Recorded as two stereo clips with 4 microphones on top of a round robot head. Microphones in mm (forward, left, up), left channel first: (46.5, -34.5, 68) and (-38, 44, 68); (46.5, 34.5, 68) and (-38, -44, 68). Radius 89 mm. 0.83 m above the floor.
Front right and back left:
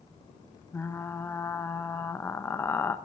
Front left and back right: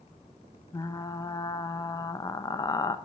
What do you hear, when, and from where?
0.7 s frying: 15° left, 0.8 m